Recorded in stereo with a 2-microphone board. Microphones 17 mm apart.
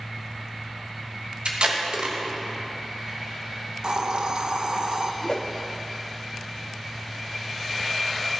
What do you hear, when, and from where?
1.4 s tape being pulled: 65° right (ahead or behind), 1.4 m
3.8 s a hiss: 55° right (ahead or behind), 0.6 m
5.2 s a whoosh: 45° left (ahead or behind), 0.6 m